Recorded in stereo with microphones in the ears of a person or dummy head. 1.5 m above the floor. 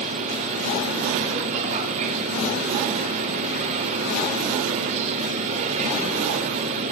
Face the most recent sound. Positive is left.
turn(degrees=-40)  # may be behind; listen again after turning